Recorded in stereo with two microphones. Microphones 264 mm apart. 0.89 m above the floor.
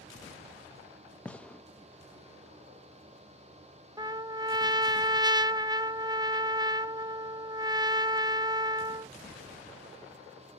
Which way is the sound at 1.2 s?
5° left (ahead or behind).